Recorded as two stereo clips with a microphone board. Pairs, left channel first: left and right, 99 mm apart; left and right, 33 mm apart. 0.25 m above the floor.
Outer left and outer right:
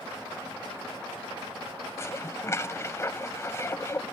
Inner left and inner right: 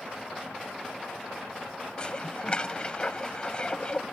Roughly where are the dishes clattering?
Left.